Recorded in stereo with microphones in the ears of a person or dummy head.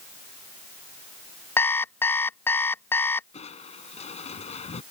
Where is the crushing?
35° left (ahead or behind).